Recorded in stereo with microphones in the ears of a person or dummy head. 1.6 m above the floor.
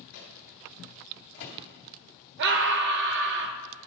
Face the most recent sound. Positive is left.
turn(degrees=-60)  # may be behind; listen again after turning